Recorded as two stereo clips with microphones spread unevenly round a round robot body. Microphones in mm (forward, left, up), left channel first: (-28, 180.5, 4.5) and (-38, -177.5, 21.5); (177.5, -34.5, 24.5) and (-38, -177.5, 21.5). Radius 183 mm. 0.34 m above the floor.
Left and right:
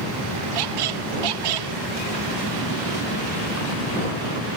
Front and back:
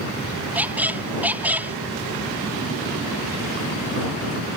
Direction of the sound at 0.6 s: 60° right.